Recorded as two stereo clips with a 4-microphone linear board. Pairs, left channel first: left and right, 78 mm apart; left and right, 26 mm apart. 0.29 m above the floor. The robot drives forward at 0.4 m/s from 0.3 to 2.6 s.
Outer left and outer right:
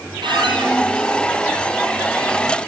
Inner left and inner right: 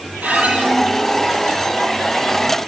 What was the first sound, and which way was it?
A squeak, 75° right (ahead or behind).